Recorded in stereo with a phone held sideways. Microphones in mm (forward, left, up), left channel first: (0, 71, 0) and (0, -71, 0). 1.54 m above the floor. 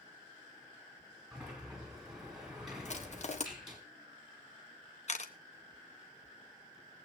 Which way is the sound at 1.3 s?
5° right (ahead or behind).